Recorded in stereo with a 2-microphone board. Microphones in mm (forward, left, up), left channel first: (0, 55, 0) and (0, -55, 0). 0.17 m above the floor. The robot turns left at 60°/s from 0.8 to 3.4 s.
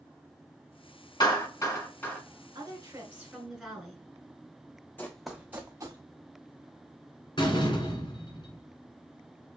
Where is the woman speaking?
125° right, 2.0 m; by 4.0 s 175° right, 2.0 m.